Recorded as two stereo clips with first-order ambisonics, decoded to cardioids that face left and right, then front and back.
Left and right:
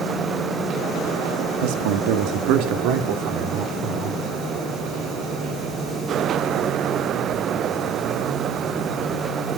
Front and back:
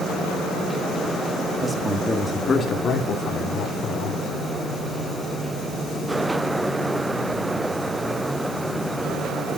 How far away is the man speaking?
About 2 m.